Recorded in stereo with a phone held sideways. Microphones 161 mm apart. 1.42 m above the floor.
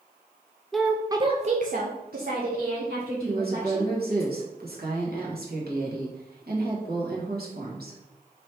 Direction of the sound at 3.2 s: 75° right (ahead or behind).